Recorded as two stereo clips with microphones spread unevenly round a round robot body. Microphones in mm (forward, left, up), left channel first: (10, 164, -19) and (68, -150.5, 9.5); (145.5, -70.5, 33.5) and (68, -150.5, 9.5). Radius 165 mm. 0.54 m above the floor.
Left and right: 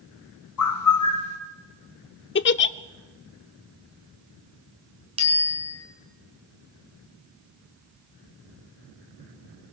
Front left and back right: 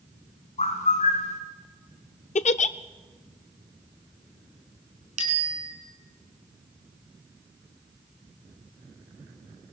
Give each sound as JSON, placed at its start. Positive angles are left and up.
{"t": 0.6, "sound": "a bird", "azimuth_deg": 70, "distance_m": 3.5}
{"t": 2.4, "sound": "a giggle", "azimuth_deg": 50, "distance_m": 0.6}
{"t": 5.2, "sound": "a bicycle bell", "azimuth_deg": -155, "distance_m": 4.5}